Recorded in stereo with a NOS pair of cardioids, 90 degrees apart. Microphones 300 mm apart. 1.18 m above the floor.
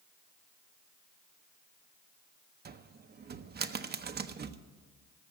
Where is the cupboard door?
35° right, 0.7 m.